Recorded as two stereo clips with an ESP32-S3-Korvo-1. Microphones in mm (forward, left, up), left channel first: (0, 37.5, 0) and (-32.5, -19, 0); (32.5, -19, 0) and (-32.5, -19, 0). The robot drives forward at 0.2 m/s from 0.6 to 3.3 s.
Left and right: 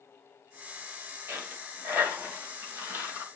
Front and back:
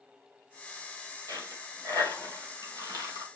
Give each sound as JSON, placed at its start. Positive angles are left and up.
{"t": 1.3, "sound": "a dropped coin", "azimuth_deg": -175, "distance_m": 2.5}